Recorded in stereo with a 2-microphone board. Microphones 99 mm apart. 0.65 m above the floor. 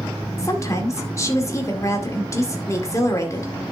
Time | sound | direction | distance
0.4 | a woman speaking | 30° left (ahead or behind) | 2 m